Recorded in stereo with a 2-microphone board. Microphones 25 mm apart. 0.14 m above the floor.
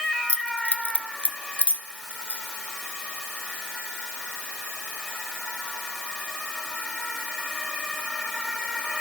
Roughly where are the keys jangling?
Left.